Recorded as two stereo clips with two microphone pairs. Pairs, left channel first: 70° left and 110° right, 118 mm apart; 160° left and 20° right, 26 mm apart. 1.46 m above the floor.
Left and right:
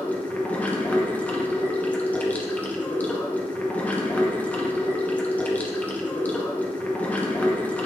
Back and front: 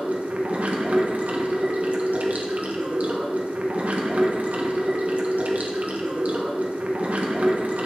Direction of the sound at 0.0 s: 5° right.